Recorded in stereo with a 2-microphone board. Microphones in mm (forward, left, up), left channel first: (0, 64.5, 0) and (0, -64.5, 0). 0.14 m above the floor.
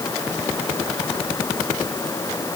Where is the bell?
No bell in this recording.